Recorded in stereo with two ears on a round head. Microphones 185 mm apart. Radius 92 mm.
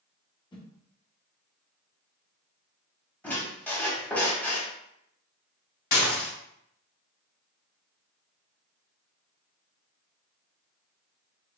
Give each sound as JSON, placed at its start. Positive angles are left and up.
{"t": 0.5, "sound": "a whoosh", "side_deg": 25, "distance_m": 0.8}
{"t": 3.2, "sound": "a squeak", "side_deg": 10, "distance_m": 0.8}
{"t": 5.9, "sound": "dishes clattering", "side_deg": 50, "distance_m": 1.7}